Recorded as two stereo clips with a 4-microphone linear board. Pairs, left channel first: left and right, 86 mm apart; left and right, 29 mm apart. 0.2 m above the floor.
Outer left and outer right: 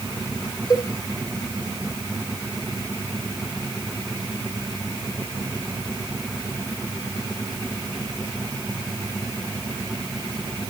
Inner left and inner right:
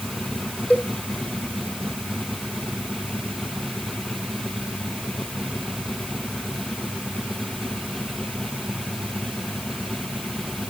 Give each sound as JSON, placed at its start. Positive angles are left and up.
{"t": 0.7, "sound": "a cowbell", "side_deg": 45, "distance_m": 1.2}